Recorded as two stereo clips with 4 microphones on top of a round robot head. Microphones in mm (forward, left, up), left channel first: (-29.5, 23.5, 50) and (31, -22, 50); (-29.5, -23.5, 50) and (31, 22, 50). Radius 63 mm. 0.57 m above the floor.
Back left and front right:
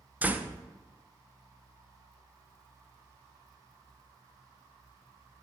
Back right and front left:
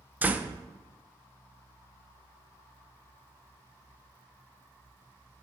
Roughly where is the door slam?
Ahead.